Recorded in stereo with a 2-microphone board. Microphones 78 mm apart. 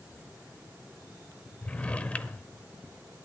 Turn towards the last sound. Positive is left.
turn(degrees=15)  # may be behind; listen again after turning